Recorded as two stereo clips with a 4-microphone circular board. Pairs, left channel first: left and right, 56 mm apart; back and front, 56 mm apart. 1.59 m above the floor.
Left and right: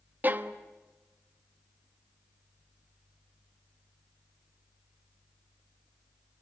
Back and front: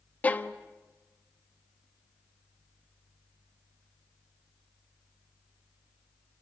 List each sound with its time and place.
0.2 s a violin: 130° right, 1.2 m